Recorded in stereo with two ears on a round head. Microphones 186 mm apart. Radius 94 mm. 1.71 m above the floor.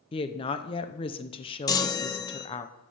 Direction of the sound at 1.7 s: 15° left (ahead or behind).